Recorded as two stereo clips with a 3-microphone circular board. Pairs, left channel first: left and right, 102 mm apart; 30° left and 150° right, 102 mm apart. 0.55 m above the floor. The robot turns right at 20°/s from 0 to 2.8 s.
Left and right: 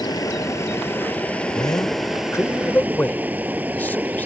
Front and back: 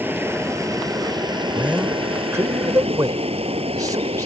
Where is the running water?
140° left; by 4.3 s 165° right.